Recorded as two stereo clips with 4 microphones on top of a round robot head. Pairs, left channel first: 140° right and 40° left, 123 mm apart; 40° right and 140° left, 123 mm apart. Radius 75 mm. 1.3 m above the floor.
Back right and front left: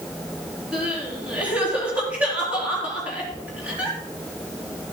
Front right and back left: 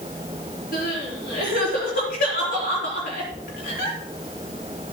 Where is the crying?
40° right, 4 m.